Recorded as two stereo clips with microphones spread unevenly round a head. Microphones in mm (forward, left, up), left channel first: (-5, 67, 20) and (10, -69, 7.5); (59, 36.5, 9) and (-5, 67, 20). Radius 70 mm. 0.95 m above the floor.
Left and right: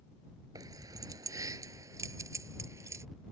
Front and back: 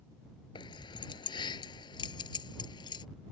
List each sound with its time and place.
0.6 s keys jangling: 15° right